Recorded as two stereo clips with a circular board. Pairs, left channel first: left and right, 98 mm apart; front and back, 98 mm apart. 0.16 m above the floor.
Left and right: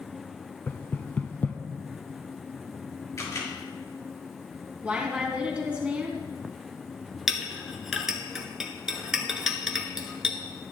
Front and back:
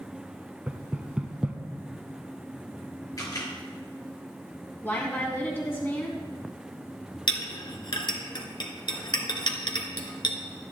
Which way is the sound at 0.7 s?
120° left.